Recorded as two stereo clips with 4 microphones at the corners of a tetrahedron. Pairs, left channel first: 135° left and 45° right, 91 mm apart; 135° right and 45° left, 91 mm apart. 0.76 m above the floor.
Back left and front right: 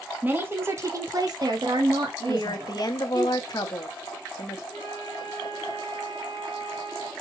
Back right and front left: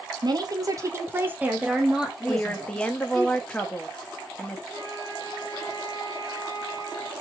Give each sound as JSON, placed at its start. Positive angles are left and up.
{"t": 0.2, "sound": "a woman speaking", "azimuth_deg": 20, "distance_m": 1.0}
{"t": 2.3, "sound": "a woman speaking", "azimuth_deg": 150, "distance_m": 0.8}
{"t": 4.7, "sound": "a flute", "azimuth_deg": -170, "distance_m": 1.4}